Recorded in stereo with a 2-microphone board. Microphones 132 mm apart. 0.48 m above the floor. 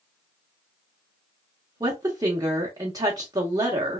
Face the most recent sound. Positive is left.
turn(degrees=-30)  # may be behind; listen again after turning